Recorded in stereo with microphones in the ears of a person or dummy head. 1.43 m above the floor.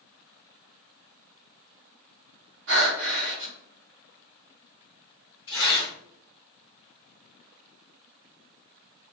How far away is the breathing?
About 1.5 m.